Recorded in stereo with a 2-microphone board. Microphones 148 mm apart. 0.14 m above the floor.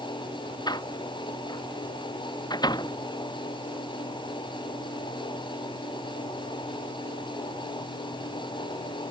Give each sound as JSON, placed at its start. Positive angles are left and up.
{"t": 0.7, "sound": "a door slam", "side_deg": 30}